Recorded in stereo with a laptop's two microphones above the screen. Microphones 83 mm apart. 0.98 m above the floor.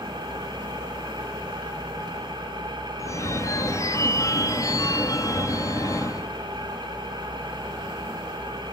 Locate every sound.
0.0 s an engine running: 60° right (ahead or behind), 4.5 m
3.0 s a phone ringing: 40° left (ahead or behind), 0.5 m